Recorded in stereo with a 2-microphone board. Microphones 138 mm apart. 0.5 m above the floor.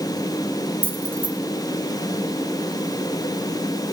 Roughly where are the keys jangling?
Centre.